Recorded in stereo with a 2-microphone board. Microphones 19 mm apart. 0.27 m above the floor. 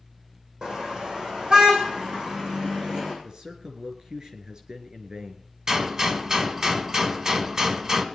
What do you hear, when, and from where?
0.6 s a car horn: 70° right (ahead or behind), 6 m; by 3.1 s 55° right (ahead or behind), 8.5 m
3.2 s a man speaking: 45° right (ahead or behind), 4 m
5.7 s a gunshot: 40° right (ahead or behind), 1.5 m